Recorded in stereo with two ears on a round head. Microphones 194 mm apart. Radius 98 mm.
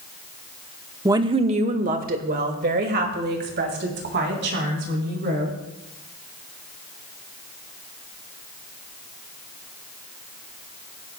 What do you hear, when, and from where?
1.1 s a woman speaking: 15° right (ahead or behind), 0.8 m; by 5.5 s 60° right (ahead or behind), 5 m